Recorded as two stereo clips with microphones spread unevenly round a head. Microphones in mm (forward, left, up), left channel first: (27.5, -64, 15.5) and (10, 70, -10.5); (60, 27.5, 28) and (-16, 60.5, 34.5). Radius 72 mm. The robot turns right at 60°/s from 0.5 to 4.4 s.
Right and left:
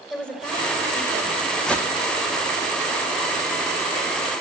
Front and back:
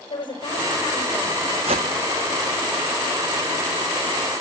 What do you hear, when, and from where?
0.1 s a woman speaking: straight ahead, 5.5 m; by 1.6 s 65° left, 5.5 m
1.6 s a whoosh: 170° right, 1.2 m; by 1.9 s 155° right, 1.2 m